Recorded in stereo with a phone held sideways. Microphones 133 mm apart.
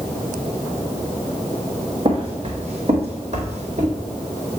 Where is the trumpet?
I don't hear a trumpet.